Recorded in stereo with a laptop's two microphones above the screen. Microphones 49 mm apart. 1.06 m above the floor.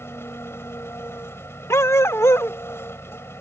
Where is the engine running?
55° left (ahead or behind).